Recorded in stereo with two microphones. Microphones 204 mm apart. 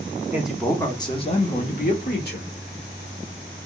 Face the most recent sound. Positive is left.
turn(degrees=55)  # may be behind; listen again after turning